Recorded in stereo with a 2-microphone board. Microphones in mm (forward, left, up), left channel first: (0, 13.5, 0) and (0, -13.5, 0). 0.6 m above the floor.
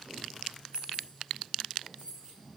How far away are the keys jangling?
About 4 m.